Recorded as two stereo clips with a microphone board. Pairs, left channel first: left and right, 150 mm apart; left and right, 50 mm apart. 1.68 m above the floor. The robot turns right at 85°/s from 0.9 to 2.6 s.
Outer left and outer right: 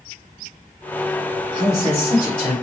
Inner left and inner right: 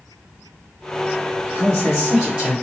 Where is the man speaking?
130° left, 2.0 m; by 2.5 s 145° right, 2.0 m.